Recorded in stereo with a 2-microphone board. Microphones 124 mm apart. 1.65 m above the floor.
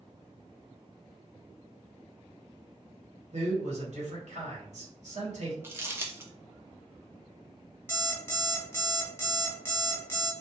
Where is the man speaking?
70° right (ahead or behind), 1.1 m.